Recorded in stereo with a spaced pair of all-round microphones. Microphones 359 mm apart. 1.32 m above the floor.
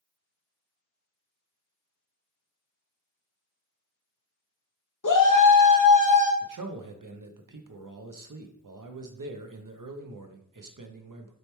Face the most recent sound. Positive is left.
turn(degrees=-60)  # may be behind; listen again after turning